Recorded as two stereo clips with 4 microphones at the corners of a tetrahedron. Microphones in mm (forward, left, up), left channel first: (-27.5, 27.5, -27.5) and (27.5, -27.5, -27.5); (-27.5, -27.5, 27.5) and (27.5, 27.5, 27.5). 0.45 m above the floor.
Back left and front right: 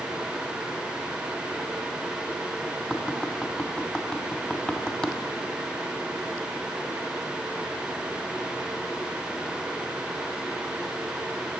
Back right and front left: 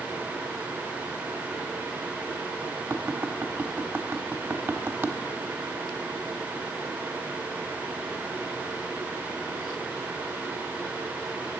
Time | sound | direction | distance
2.9 | tapping | 60° left | 1.2 m